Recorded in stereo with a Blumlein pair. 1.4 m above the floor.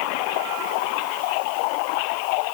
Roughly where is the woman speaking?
I don't hear a woman speaking.